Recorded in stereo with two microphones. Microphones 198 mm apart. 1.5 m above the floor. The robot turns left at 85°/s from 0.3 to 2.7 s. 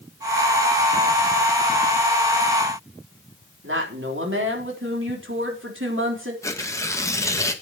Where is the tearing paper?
15° left (ahead or behind), 1.4 m.